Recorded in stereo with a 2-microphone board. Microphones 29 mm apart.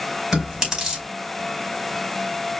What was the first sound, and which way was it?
Chewing, 25° right (ahead or behind).